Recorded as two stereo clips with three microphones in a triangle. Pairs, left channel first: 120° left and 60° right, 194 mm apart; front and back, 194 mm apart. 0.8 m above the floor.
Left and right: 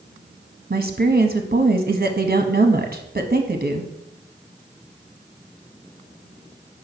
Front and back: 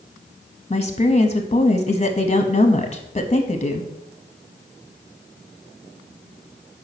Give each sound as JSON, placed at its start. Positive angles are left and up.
{"t": 0.7, "sound": "a woman speaking", "azimuth_deg": -50, "distance_m": 0.8}